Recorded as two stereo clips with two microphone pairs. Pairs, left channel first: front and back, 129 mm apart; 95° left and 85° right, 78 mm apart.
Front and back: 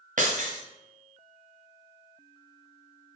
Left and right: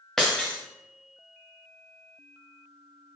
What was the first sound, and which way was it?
Breaking glass, straight behind.